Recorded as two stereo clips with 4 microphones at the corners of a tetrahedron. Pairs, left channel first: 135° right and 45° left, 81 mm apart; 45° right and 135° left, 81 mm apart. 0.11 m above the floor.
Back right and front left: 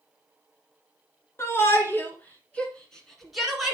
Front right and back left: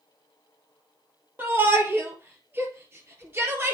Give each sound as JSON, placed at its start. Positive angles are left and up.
{"t": 1.4, "sound": "a shout", "azimuth_deg": -175, "distance_m": 2.5}